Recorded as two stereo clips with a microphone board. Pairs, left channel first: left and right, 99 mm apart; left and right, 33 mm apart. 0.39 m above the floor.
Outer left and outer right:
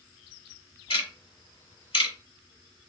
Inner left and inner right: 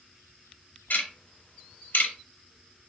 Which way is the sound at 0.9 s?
65° left (ahead or behind).